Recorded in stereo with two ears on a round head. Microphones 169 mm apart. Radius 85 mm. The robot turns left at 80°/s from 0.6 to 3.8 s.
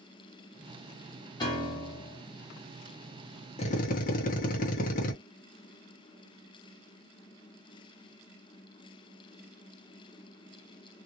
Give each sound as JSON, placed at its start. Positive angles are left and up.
{"t": 1.4, "sound": "a piano", "side_deg": 20, "distance_m": 1.3}
{"t": 3.6, "sound": "a drill", "side_deg": 30, "distance_m": 1.0}